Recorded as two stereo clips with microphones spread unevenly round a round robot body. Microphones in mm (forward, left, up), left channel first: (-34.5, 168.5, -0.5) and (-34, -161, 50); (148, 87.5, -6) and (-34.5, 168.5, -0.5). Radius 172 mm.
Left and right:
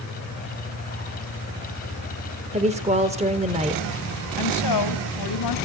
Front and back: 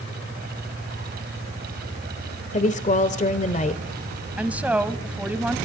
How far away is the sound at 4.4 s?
About 2.5 m.